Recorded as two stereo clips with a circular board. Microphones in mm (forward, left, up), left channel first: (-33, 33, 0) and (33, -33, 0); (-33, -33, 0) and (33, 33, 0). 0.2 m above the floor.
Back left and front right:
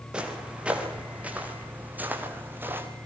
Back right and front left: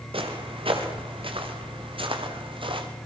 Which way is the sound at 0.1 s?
35° left.